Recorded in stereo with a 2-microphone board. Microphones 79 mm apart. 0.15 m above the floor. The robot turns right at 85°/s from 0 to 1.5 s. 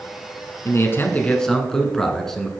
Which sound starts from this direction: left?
A man speaking, at 0.7 s.